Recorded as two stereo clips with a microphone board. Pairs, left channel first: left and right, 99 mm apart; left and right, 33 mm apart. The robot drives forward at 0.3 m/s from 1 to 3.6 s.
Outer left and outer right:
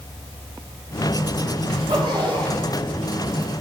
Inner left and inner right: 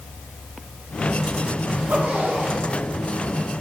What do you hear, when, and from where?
1.7 s a zipper: 70° right (ahead or behind), 4 m; by 2.7 s 65° right (ahead or behind), 4 m